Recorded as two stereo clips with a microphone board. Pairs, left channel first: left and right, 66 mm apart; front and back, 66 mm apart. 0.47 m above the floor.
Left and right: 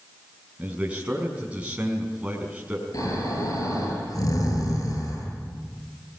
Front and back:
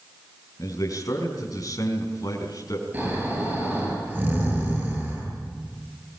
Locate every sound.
0.6 s a man speaking: 20° right, 5 m
2.9 s snoring: 120° left, 10 m